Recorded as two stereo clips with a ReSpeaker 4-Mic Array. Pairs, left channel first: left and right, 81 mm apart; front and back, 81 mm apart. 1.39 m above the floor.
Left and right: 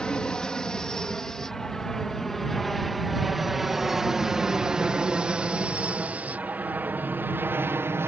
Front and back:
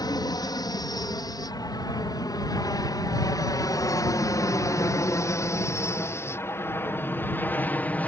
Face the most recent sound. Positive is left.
turn(degrees=-60)